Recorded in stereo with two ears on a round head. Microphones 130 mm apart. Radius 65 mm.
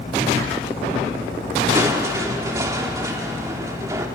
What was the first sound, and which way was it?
Crushing, 20° right (ahead or behind).